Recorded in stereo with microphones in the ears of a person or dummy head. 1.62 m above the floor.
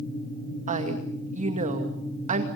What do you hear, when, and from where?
0.7 s a woman speaking: 40° right (ahead or behind), 2.5 m